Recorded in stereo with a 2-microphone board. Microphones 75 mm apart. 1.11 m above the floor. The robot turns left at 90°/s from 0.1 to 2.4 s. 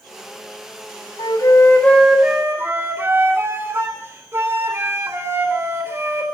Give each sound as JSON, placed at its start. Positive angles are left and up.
{"t": 1.2, "sound": "a flute", "azimuth_deg": 75, "distance_m": 3.5}